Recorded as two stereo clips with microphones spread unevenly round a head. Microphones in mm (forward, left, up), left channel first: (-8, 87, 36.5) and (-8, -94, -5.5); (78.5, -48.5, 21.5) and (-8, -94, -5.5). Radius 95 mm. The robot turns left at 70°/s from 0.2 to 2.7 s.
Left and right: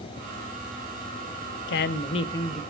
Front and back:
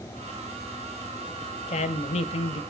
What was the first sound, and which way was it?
A woman speaking, 65° left.